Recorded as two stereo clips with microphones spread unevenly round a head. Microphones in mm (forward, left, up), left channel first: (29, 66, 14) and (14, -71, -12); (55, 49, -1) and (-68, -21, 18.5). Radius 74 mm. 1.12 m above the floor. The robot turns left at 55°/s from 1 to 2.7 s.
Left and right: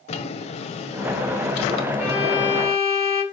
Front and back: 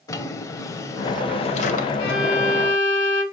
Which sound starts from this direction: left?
A drawer, at 0.1 s.